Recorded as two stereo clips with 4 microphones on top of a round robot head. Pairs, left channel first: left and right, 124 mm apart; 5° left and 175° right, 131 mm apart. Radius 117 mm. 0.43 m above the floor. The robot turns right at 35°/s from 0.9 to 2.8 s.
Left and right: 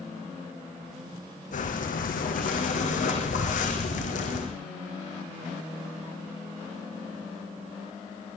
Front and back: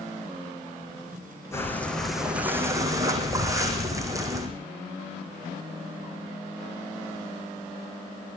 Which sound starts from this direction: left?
Breathing, at 1.5 s.